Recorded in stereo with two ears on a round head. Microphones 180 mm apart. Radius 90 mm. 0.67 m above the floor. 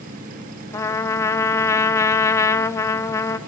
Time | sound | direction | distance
0.7 | a trumpet | 15° left (ahead or behind) | 0.9 m